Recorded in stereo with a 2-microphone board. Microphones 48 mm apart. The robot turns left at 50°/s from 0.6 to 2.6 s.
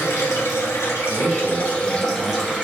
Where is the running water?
85° left, 1.6 m; by 2.6 s 15° right, 1.6 m.